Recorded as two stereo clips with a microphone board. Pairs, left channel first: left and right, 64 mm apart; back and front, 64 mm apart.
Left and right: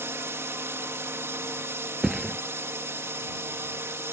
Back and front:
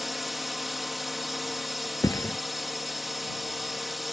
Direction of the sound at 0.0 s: 90° right.